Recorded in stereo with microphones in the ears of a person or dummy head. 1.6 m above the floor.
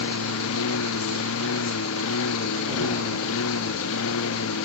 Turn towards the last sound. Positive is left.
turn(degrees=75)  # may be behind; listen again after turning